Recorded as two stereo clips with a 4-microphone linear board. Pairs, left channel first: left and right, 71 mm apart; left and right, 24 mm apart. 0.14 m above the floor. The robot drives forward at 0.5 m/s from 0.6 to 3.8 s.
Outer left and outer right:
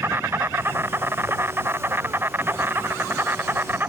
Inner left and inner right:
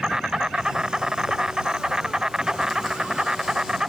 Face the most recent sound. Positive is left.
turn(degrees=-30)  # may be behind; listen again after turning